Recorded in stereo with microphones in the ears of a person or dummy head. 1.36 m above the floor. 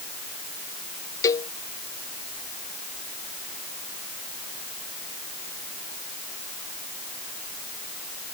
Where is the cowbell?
20° left (ahead or behind).